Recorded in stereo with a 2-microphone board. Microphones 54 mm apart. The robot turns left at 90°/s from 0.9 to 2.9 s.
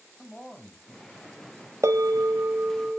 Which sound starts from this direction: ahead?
A man speaking, at 0.2 s.